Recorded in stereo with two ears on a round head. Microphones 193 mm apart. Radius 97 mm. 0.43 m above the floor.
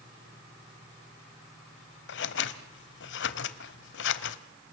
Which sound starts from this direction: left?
Scissors, at 2.1 s.